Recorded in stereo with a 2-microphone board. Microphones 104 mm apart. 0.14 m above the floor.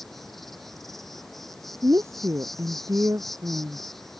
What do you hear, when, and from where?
0.0 s an insect: centre (ahead or behind)
1.8 s a woman speaking: 30° right (ahead or behind)